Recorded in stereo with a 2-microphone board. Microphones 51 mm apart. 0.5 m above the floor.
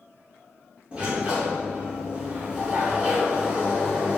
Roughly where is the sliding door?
Right.